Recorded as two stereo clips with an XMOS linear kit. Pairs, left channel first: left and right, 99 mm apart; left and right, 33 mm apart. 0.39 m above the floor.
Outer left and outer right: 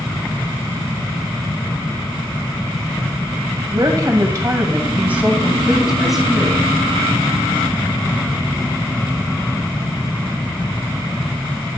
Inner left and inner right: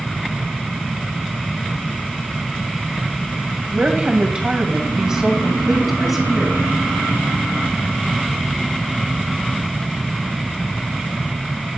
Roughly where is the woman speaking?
Right.